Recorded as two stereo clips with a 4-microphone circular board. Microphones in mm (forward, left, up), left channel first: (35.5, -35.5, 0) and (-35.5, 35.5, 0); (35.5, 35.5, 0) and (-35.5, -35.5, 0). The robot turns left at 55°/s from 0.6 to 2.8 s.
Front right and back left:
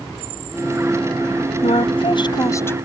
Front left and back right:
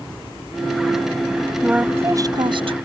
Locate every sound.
1.6 s a woman speaking: 50° right; by 2.8 s 115° right